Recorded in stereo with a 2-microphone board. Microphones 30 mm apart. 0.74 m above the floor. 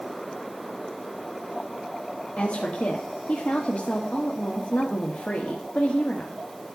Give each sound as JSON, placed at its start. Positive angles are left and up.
{"t": 2.4, "sound": "a woman speaking", "side_deg": 55, "distance_m": 1.5}